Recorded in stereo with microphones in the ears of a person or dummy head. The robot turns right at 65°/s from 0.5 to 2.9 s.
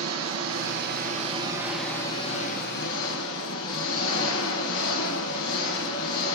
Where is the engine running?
80° right, 4.5 m; by 6.4 s 75° left, 4.5 m.